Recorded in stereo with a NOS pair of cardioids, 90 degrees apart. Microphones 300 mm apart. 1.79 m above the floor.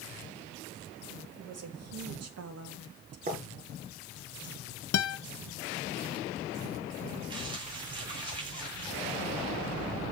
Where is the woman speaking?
55° right, 3.5 m.